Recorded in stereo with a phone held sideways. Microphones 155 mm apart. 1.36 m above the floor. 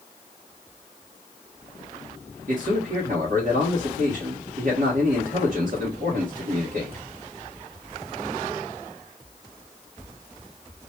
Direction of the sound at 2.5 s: 75° right (ahead or behind).